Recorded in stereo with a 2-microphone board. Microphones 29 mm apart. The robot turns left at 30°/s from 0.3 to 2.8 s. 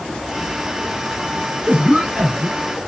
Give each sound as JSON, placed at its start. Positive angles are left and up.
{"t": 1.7, "sound": "a cough", "azimuth_deg": -130, "distance_m": 4.0}